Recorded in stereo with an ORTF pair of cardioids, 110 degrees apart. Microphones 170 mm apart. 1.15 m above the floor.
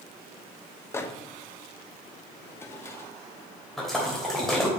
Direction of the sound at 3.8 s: Straight ahead.